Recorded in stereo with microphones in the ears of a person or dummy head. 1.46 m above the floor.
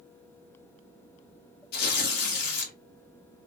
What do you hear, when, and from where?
1.7 s tearing paper: 60° left (ahead or behind), 1.4 m